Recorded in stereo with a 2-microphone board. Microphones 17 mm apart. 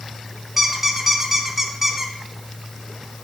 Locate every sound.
0.6 s a squeak: 15° right (ahead or behind), 0.8 m